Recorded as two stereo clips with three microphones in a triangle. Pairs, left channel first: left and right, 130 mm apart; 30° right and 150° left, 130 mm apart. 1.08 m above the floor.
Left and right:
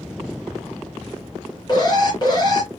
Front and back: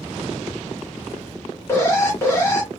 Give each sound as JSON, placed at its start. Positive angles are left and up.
{"t": 1.7, "sound": "an alarm", "azimuth_deg": 40, "distance_m": 2.5}